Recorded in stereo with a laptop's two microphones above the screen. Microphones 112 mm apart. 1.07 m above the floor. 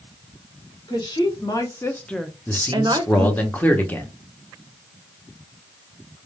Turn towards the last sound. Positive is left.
turn(degrees=15)  # may be behind; listen again after turning